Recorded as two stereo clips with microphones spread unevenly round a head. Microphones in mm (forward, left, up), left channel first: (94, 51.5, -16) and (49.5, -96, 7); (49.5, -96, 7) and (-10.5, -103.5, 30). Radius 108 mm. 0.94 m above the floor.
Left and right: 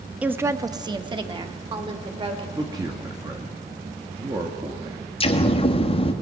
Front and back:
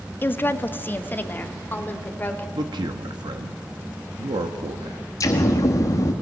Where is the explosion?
25° left, 1.9 m.